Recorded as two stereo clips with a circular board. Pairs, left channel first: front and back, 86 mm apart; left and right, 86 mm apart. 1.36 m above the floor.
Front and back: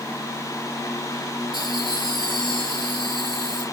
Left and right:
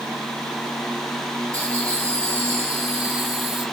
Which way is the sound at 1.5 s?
35° right.